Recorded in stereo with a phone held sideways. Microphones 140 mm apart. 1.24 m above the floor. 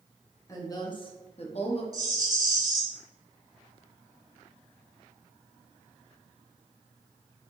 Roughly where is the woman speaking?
Left.